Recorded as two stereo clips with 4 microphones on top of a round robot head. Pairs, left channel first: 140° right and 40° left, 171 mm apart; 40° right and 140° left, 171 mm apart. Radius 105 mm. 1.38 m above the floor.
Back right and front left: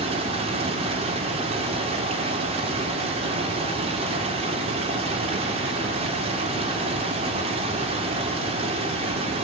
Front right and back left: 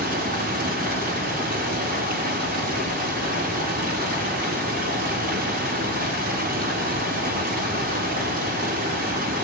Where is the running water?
100° left, 3 m.